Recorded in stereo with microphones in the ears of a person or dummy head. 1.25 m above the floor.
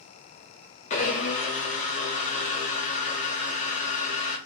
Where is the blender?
40° left (ahead or behind), 0.9 m.